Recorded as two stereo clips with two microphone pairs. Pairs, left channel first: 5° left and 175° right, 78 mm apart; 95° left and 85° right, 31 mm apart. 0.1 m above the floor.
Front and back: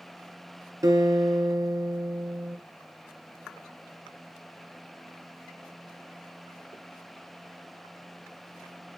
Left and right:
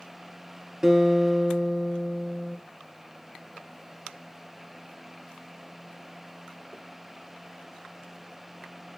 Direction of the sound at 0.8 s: 150° right.